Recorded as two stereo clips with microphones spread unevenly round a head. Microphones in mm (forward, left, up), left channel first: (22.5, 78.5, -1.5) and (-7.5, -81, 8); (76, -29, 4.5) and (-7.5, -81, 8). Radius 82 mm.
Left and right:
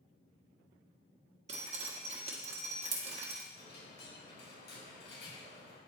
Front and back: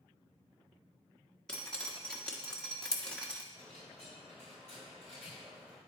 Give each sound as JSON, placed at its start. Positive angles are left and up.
{"t": 1.5, "sound": "dripping", "azimuth_deg": -50, "distance_m": 1.6}
{"t": 3.5, "sound": "a dropped coin", "azimuth_deg": 105, "distance_m": 4.5}